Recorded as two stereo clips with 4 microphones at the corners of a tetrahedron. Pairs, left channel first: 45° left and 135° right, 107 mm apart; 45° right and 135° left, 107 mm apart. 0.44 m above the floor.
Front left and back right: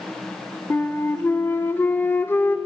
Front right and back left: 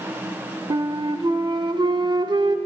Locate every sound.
0.7 s a flute: 110° left, 0.5 m